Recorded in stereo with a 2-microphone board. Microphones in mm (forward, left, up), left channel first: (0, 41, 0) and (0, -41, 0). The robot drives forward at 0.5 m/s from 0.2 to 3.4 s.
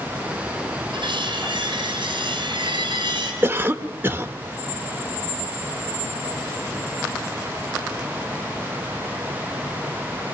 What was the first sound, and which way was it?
Cutlery clinking, 75° right (ahead or behind).